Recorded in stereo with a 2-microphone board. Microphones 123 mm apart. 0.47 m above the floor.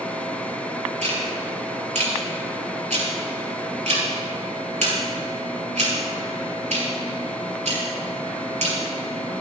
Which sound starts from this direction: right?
Ticking, at 1.0 s.